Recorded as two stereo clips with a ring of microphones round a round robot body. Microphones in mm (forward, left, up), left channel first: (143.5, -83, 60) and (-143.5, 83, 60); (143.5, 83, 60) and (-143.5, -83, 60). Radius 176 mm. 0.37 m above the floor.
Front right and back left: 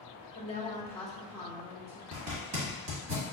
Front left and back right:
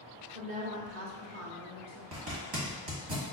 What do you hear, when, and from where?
0.3 s a woman speaking: 85° right, 1.1 m; by 2.0 s 145° right, 1.4 m
2.1 s a zipper: 170° right, 1.5 m